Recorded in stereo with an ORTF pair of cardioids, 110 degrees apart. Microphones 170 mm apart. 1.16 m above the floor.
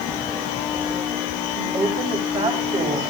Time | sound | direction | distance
1.6 | a woman speaking | 25° right | 5 m